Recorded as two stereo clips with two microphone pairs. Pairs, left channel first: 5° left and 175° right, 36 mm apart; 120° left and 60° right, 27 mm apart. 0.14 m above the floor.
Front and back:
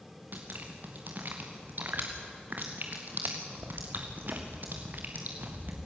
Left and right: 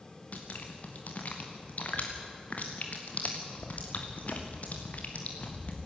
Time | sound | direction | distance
0.3 | dripping | 150° left | 3 m